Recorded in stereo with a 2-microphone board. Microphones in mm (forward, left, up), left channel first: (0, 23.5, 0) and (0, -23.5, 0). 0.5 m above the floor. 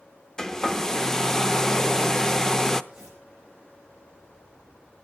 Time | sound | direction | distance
0.4 | a hair dryer | 10° left (ahead or behind) | 0.6 m
2.9 | tearing paper | 15° right (ahead or behind) | 8.5 m